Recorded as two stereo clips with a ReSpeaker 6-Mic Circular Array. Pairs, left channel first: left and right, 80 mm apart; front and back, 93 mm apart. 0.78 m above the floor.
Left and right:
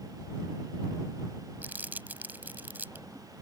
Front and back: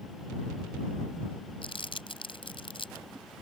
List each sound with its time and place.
1.6 s crumpling: 20° right